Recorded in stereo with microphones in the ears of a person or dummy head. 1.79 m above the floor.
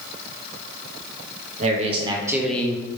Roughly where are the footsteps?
I don't hear footsteps.